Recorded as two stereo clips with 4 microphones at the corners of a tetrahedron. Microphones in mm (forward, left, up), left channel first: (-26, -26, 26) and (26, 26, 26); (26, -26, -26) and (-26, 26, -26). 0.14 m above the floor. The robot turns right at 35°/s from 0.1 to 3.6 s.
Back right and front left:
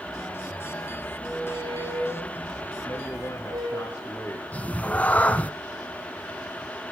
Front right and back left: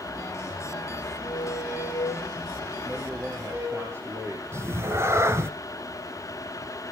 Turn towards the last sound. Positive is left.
turn(degrees=165)